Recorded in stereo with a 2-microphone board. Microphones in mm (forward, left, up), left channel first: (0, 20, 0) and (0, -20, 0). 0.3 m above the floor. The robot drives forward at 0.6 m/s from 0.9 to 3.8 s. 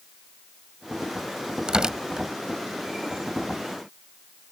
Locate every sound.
1.7 s tearing paper: 20° right (ahead or behind); by 2.3 s 15° right (ahead or behind)